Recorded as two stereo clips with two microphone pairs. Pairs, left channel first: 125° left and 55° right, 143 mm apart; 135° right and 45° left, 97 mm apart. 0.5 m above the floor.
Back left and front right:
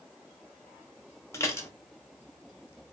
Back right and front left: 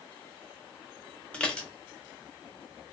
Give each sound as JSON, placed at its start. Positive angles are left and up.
{"t": 1.3, "sound": "dishes clattering", "azimuth_deg": 160, "distance_m": 0.6}